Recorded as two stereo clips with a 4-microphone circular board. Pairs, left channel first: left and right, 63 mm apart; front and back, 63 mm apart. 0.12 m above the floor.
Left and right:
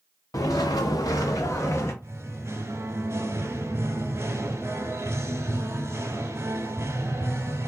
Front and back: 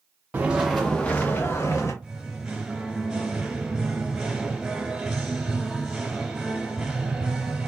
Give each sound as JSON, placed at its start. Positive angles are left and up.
{"t": 0.3, "sound": "footsteps", "azimuth_deg": 115, "distance_m": 0.7}
{"t": 2.0, "sound": "singing", "azimuth_deg": -105, "distance_m": 0.8}